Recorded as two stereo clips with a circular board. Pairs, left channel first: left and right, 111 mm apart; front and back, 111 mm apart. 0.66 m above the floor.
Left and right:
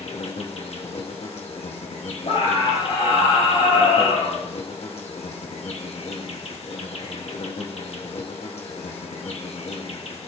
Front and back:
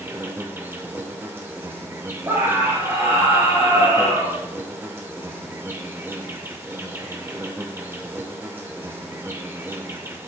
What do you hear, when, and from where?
0.0 s an insect: 110° left, 1.2 m
2.2 s a scream: 110° left, 4.5 m